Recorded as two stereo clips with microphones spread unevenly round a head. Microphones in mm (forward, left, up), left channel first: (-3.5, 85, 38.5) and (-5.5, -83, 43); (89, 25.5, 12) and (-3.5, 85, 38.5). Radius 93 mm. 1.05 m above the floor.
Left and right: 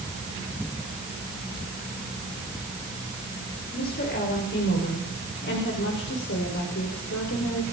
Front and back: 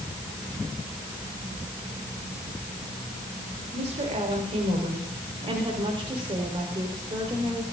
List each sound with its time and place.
3.7 s a woman speaking: 125° left, 4.5 m; by 7.6 s 90° left, 4.5 m